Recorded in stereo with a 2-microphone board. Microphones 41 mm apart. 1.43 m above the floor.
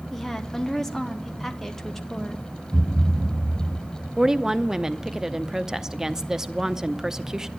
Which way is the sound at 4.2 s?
15° right (ahead or behind).